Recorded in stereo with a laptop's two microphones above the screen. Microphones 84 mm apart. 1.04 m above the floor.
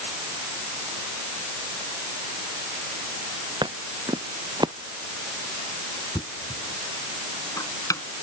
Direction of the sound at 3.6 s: 65° right (ahead or behind).